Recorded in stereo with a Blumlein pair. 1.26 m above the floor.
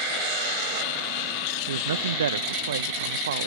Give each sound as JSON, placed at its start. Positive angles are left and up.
{"t": 1.7, "sound": "a man speaking", "azimuth_deg": -65}